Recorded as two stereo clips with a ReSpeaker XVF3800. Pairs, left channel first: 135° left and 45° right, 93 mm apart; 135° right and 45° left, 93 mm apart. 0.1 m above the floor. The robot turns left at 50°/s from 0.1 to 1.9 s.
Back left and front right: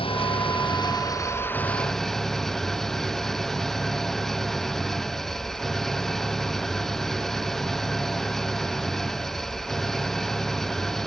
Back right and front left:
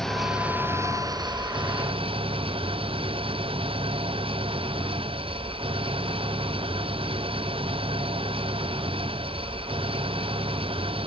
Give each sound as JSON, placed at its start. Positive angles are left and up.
{"t": 0.0, "sound": "an engine running", "azimuth_deg": 140}